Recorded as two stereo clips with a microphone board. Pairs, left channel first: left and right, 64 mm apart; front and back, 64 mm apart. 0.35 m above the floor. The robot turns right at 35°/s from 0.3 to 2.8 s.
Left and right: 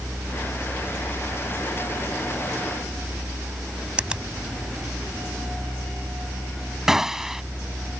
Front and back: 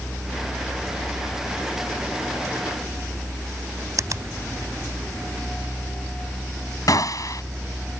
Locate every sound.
4.0 s a finger snap: 160° right
6.9 s a gunshot: 5° right